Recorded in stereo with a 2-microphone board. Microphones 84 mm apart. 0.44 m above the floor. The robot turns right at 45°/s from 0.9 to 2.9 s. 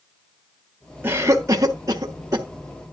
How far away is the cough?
About 1.2 m.